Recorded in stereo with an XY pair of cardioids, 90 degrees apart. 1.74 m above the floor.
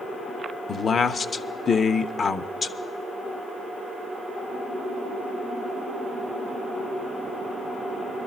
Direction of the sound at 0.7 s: 45° left.